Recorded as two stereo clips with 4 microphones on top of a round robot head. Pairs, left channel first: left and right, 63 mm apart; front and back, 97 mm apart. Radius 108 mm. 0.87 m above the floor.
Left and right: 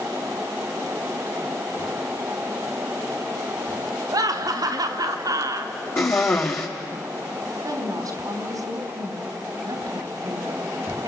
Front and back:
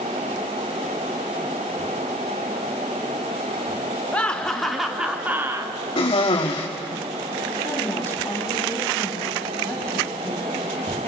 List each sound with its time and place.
4.1 s laughter: 75° right, 2.5 m; by 5.7 s 120° right, 1.5 m
6.0 s a cough: 40° left, 1.7 m
7.6 s a woman speaking: 70° right, 3 m